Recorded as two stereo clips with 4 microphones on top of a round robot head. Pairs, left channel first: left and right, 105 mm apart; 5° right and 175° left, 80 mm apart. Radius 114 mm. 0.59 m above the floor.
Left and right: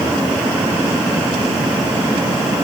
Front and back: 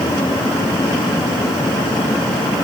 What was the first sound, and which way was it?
Only background noise.